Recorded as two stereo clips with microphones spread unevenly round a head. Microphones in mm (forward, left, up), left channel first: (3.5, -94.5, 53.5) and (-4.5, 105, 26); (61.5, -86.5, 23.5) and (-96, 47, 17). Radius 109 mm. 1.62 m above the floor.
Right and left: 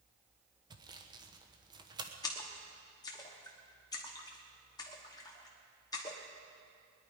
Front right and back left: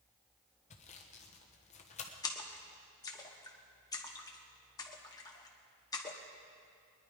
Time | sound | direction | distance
0.7 | sawing | 20° left | 1.0 m
2.2 | a splash | 80° right | 1.1 m